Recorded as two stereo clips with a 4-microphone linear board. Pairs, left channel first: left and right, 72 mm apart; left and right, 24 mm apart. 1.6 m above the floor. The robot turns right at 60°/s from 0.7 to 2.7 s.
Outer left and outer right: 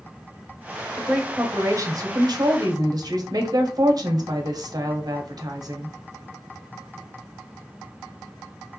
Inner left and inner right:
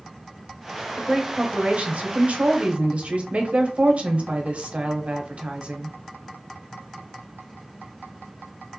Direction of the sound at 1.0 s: 175° right.